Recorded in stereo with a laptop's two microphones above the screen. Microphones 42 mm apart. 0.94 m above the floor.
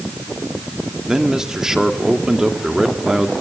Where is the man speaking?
15° right (ahead or behind), 2.0 m.